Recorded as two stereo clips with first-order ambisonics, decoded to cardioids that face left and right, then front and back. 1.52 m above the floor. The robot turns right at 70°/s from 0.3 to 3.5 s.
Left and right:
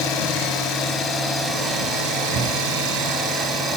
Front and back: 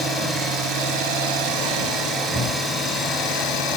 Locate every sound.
0.0 s an engine running: 105° left, 6 m; by 3.8 s 30° right, 6 m